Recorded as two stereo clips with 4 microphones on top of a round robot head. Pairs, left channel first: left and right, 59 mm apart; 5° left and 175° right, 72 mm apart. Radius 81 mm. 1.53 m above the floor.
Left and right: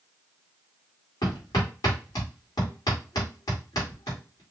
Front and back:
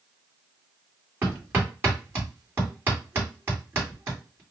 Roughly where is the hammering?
Behind left.